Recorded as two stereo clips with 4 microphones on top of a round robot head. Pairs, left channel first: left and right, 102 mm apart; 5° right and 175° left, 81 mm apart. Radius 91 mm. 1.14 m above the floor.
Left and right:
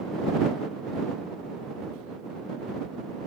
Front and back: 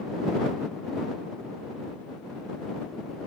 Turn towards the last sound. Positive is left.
No sound to turn to.